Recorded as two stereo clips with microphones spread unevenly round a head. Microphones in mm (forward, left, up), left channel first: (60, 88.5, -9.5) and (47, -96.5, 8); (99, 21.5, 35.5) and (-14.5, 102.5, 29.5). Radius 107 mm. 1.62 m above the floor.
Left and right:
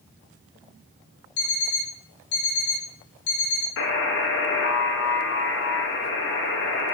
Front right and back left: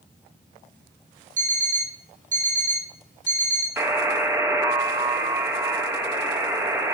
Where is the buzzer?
75° left, 3 m.